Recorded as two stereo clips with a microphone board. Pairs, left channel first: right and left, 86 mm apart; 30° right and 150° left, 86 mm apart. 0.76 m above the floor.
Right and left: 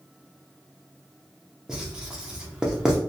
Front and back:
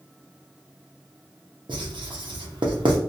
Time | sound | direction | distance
1.7 | writing | 170° left | 0.6 m